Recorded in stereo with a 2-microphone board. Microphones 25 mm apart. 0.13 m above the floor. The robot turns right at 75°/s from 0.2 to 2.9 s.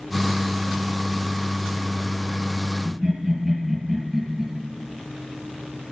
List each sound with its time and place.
2.9 s laughter: 5° left (ahead or behind), 3 m; by 4.5 s centre (ahead or behind), 3 m